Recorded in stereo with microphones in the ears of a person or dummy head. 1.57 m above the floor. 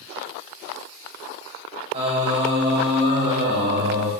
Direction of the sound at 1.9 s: 35° right (ahead or behind).